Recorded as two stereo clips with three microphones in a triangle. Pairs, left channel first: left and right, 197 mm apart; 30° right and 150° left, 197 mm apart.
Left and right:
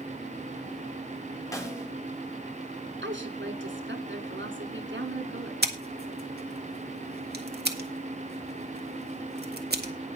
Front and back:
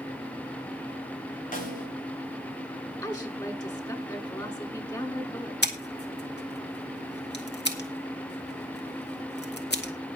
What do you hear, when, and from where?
1.5 s a snare drum: 15° left, 4 m
3.0 s a woman speaking: 100° right, 3 m
5.6 s scissors: 55° right, 1.9 m